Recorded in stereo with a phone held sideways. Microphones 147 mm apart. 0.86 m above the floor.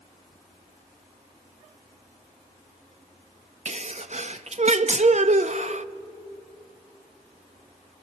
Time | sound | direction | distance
3.6 | a sneeze | 50° right (ahead or behind) | 0.8 m